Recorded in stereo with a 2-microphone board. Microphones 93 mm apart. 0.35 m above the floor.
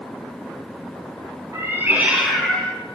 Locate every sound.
1.5 s a cat meowing: 30° right (ahead or behind), 2 m; by 2.7 s 20° left (ahead or behind), 1.9 m